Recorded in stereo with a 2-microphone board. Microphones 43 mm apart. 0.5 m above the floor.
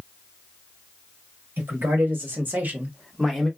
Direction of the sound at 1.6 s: 55° right (ahead or behind).